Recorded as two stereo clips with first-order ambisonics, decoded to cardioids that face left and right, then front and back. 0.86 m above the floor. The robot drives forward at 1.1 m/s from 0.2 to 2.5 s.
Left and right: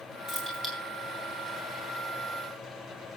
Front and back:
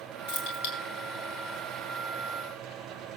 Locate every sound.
0.3 s keys jangling: 5° right, 8.5 m